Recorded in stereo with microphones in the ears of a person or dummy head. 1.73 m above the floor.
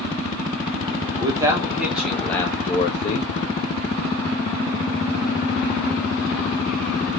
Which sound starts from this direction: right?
A man speaking, at 1.2 s.